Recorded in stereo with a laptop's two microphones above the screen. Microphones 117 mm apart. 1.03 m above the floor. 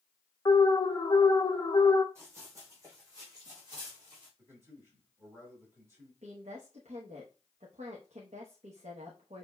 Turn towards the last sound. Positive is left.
turn(degrees=-75)  # may be behind; listen again after turning